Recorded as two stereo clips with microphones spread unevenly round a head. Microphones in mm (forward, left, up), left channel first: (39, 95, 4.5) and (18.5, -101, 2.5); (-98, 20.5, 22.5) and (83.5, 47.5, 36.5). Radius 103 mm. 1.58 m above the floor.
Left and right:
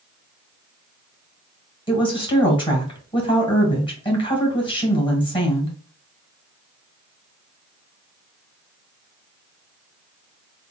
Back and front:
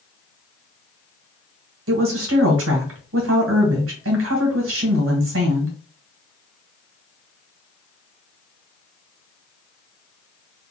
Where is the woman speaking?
15° left, 1.7 m.